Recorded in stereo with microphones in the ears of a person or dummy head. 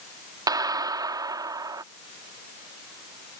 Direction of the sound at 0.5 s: 20° right (ahead or behind).